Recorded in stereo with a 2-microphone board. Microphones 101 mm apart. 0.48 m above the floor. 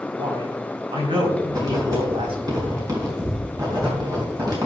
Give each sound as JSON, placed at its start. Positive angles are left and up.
{"t": 0.1, "sound": "a man speaking", "side_deg": -60, "distance_m": 3.5}
{"t": 1.5, "sound": "writing", "side_deg": -40, "distance_m": 4.0}